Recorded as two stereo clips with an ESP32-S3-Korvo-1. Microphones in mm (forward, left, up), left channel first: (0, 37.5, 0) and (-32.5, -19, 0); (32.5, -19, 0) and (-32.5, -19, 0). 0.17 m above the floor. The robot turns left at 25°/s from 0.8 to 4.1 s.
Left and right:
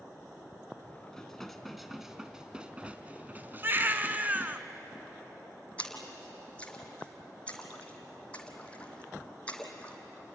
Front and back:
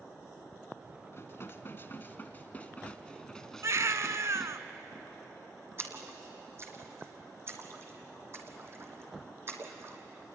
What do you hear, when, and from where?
1.1 s dishes clattering: 20° right, 1.2 m; by 4.6 s 90° right, 1.2 m
3.6 s a baby crying: 165° right, 0.9 m; by 4.6 s 175° right, 0.9 m
5.8 s a splash: 130° left, 2.5 m